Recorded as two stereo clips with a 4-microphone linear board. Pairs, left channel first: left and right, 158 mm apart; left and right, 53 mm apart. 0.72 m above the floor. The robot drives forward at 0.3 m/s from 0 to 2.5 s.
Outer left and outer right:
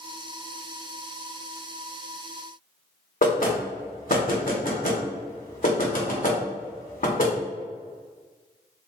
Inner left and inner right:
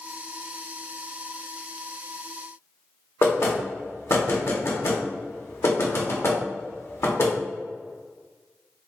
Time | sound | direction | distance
3.2 | knocking | 60° left (ahead or behind) | 0.9 m